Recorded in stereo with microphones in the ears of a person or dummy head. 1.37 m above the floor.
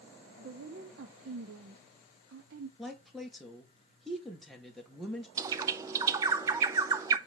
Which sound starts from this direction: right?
A woman speaking, at 0.4 s.